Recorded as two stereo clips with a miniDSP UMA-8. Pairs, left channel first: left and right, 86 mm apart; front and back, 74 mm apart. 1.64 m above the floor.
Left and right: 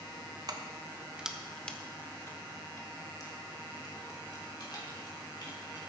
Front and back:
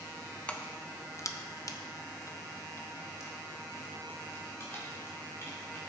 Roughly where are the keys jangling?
Right.